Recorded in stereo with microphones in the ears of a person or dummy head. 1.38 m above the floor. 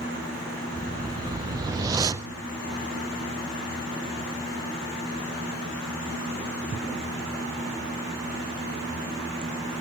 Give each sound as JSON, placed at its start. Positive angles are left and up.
{"t": 0.7, "sound": "a whoosh", "side_deg": -20, "distance_m": 0.5}